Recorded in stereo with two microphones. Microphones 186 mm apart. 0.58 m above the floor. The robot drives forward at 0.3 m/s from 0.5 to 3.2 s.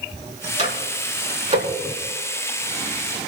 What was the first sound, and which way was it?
A microwave, 40° right (ahead or behind).